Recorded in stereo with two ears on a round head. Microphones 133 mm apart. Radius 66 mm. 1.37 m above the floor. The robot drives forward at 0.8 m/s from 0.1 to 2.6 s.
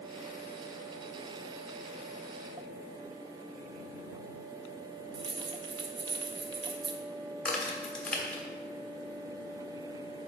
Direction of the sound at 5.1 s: 35° right (ahead or behind).